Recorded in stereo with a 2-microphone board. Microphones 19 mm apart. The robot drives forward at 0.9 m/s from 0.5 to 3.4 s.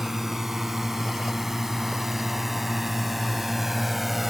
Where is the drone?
25° right (ahead or behind); by 4.3 s 20° right (ahead or behind).